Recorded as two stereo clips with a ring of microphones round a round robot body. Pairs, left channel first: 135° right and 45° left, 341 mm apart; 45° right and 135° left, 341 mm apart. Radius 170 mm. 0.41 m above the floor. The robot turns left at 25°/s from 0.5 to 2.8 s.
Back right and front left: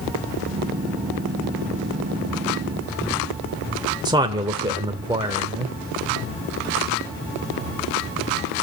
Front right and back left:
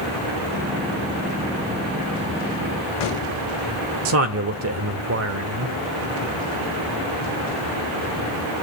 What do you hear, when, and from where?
4.0 s a man speaking: 115° left, 1.2 m